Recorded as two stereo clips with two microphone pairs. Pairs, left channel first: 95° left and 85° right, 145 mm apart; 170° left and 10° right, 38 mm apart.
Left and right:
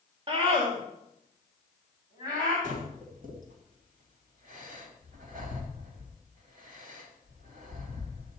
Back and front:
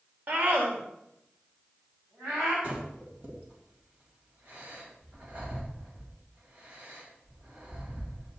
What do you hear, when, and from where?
0.3 s a scream: 40° right, 1.9 m; by 2.5 s 30° right, 4.5 m
2.6 s breathing: 60° right, 3 m